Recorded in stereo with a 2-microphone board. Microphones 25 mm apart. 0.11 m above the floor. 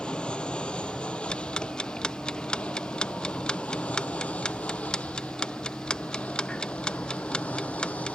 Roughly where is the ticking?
Left.